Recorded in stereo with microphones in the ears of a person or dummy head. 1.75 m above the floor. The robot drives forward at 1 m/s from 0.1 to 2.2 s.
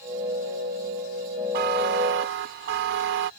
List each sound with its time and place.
1.5 s a buzzer: 60° right (ahead or behind); by 3.3 s 65° right (ahead or behind)